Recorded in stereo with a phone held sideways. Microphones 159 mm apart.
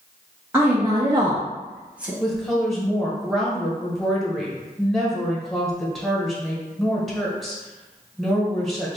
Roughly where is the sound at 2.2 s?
Centre.